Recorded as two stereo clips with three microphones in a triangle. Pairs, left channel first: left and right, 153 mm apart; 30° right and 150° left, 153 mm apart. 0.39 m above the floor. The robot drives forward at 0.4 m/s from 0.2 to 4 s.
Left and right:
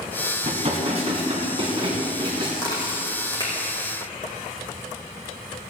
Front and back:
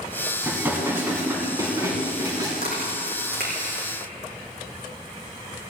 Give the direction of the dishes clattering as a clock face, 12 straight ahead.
4 o'clock.